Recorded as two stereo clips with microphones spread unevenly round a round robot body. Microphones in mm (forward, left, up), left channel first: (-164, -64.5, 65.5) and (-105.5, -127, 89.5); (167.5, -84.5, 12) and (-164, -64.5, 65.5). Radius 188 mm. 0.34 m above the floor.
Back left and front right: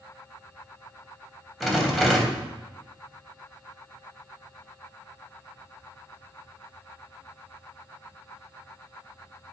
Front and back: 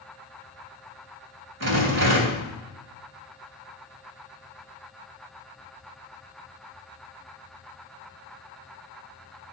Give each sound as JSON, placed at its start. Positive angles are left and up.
{"t": 1.6, "sound": "a rattle", "azimuth_deg": -140, "distance_m": 3.0}